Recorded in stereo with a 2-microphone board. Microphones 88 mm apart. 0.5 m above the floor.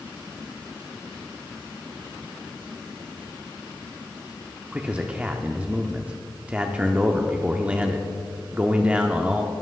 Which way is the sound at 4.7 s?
15° right (ahead or behind).